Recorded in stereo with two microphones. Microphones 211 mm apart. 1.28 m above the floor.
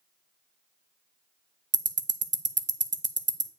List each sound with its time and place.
1.7 s ticking: 65° right (ahead or behind), 0.6 m